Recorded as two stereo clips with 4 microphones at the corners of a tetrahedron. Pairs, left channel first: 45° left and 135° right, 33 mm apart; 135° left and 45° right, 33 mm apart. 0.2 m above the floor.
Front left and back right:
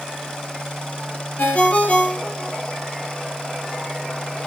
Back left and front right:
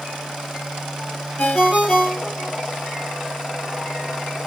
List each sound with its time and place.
1.4 s a ringtone: 90° left, 2.5 m